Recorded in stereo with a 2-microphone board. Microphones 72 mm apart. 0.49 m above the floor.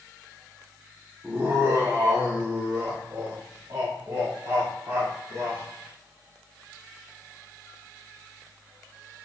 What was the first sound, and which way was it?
Laughter, 25° right (ahead or behind).